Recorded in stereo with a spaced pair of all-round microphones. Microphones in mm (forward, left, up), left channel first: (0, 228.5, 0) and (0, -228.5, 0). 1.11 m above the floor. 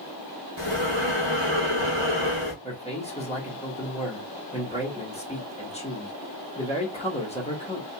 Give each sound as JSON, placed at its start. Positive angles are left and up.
{"t": 0.6, "sound": "breathing", "side_deg": -70, "distance_m": 1.1}
{"t": 2.6, "sound": "a man speaking", "side_deg": 15, "distance_m": 1.1}